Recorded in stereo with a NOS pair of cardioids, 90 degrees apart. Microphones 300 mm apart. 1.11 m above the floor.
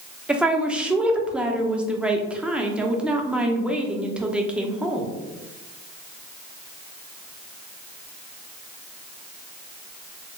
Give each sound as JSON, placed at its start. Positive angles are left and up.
{"t": 0.3, "sound": "a woman speaking", "azimuth_deg": -5, "distance_m": 0.6}